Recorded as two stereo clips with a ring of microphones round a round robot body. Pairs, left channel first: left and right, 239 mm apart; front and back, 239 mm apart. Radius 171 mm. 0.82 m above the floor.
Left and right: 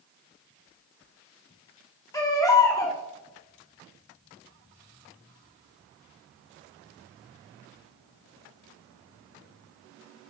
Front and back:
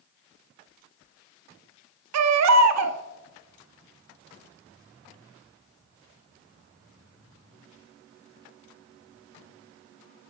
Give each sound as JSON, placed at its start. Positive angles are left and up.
{"t": 2.1, "sound": "a baby crying", "azimuth_deg": 170, "distance_m": 0.8}